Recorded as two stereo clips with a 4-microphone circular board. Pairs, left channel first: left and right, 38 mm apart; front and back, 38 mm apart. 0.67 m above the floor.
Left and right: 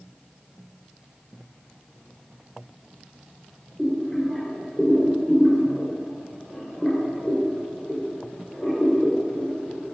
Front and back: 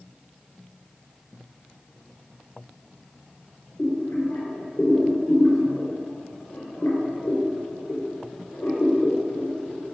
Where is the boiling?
15° left, 3.5 m.